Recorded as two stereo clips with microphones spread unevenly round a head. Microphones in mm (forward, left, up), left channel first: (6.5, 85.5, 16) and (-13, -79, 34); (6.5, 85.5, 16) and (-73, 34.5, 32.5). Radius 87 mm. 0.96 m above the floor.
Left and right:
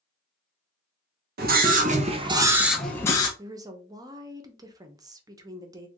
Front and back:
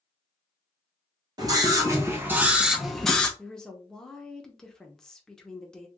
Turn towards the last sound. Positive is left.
turn(degrees=-30)